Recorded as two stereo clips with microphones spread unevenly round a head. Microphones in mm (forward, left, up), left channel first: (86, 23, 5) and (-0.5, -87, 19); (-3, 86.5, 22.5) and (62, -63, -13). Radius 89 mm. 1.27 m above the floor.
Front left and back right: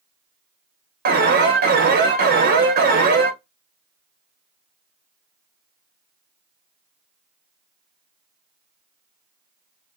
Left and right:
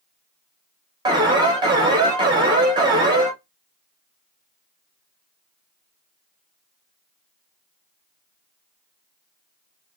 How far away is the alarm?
About 0.6 m.